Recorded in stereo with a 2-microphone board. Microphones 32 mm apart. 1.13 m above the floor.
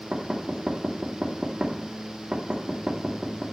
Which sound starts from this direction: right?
Knocking, at 0.1 s.